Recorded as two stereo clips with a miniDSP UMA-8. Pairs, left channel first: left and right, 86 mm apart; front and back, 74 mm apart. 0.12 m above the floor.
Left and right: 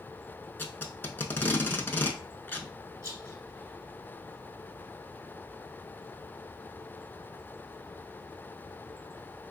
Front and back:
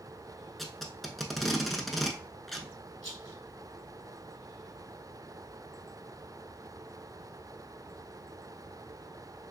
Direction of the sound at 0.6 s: 85° left.